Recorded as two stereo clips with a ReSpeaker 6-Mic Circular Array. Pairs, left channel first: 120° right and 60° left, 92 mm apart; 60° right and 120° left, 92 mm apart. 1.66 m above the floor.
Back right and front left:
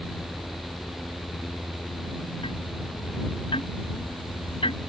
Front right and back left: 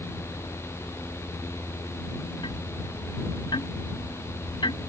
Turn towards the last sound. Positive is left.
turn(degrees=-95)